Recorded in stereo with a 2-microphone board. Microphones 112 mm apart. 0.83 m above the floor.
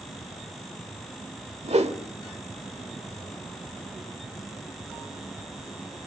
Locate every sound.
1.6 s a whoosh: 70° right (ahead or behind), 1.4 m